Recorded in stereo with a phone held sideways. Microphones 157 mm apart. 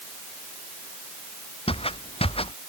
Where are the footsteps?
35° left (ahead or behind).